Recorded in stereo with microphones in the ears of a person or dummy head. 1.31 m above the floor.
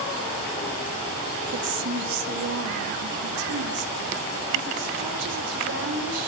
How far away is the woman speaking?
About 1.4 m.